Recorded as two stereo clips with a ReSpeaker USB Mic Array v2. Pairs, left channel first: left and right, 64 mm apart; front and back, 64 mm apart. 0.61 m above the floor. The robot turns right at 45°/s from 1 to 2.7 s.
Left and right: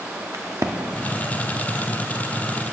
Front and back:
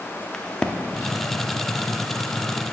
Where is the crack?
75° right, 0.5 m.